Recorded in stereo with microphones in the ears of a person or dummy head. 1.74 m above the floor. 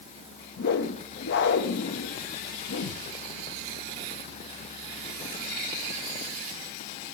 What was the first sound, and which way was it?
A whoosh, 60° left (ahead or behind).